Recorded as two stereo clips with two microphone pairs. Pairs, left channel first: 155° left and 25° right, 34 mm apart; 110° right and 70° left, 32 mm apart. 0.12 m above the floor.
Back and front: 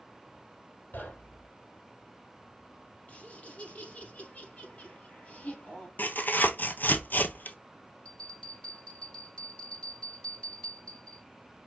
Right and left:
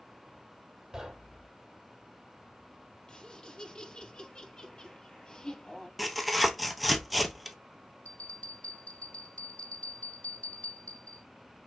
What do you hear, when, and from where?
0.9 s knocking: 145° left, 3 m
3.1 s laughter: 165° right, 3.5 m
6.0 s tearing paper: 165° left, 0.9 m
8.1 s a bell: 145° right, 3.5 m